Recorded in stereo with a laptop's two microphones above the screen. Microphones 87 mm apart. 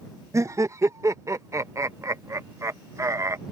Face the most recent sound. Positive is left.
turn(degrees=-35)  # may be behind; listen again after turning